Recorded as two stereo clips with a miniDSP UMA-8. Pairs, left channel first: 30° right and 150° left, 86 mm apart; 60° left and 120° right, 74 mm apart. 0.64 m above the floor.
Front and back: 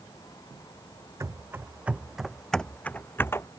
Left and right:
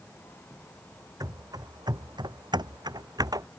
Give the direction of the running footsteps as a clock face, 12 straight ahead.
5 o'clock.